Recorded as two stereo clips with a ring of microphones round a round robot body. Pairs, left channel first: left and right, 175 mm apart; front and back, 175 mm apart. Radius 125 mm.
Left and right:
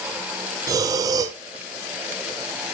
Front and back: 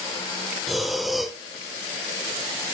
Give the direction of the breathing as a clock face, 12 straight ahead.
3 o'clock.